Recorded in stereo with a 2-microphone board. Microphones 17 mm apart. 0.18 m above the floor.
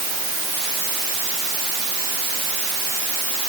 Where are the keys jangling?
I don't hear keys jangling.